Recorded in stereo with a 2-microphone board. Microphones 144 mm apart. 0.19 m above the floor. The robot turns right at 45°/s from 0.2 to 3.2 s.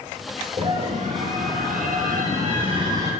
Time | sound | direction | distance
0.6 | a scream | 140° right | 3 m